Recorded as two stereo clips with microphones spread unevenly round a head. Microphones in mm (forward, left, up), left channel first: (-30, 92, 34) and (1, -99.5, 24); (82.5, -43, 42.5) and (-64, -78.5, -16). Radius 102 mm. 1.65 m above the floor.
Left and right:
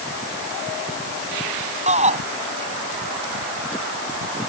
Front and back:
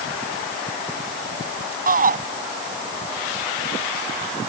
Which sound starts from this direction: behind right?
A shout, at 1.9 s.